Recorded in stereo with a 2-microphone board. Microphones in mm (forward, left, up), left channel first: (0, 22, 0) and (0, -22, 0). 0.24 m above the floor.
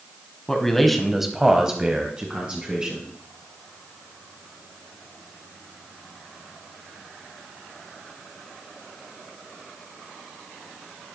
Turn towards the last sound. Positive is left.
turn(degrees=-20)  # may be behind; listen again after turning